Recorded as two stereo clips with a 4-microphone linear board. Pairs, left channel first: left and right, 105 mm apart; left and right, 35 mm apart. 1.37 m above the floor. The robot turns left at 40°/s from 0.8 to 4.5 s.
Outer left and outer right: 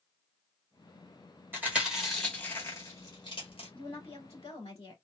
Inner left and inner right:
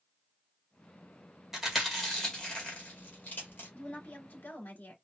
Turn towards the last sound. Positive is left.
turn(degrees=95)